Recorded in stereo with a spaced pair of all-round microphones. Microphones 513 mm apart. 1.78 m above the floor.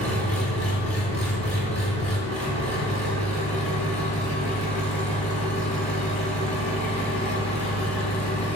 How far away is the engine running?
About 1.3 m.